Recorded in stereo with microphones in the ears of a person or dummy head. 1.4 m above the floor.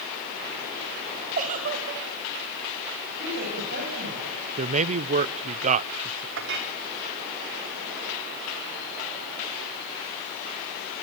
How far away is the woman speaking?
About 9 m.